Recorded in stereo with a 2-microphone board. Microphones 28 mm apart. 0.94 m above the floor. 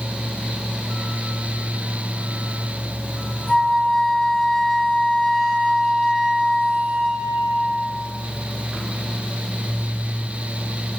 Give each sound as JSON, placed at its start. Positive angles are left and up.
{"t": 3.5, "sound": "a flute", "side_deg": 15, "distance_m": 1.2}